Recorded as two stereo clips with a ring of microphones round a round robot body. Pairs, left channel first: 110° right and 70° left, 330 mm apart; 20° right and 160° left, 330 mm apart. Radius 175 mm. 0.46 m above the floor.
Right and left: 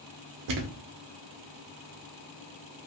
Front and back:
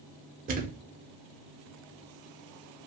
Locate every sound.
0.5 s a thud: 95° left, 0.7 m